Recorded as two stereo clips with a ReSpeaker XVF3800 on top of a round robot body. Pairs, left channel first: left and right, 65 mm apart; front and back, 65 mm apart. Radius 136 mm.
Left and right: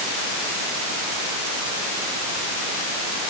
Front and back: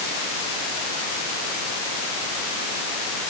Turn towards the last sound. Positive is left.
No sound to turn to.